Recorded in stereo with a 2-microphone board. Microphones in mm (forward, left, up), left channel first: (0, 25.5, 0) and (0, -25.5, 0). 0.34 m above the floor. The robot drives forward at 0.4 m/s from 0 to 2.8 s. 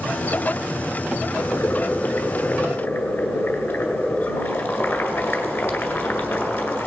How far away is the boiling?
About 1.3 m.